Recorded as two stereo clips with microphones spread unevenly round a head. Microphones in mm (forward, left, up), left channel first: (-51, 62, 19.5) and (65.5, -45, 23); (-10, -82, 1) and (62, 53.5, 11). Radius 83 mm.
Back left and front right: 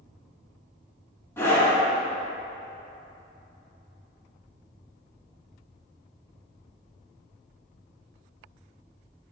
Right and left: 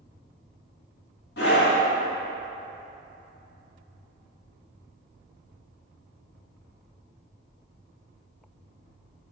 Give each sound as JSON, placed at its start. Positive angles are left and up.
{"t": 1.4, "sound": "a scream", "azimuth_deg": -145, "distance_m": 2.0}